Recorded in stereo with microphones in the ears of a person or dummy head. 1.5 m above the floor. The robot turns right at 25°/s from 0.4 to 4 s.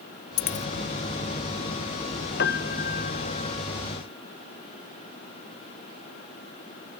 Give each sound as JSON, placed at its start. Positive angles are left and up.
{"t": 0.4, "sound": "a dropped coin", "side_deg": 45}
{"t": 2.4, "sound": "a piano", "side_deg": 55}